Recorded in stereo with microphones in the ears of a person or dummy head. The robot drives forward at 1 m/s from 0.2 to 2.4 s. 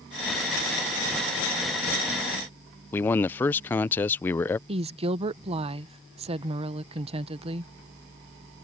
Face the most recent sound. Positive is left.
turn(degrees=-30)  # may be behind; listen again after turning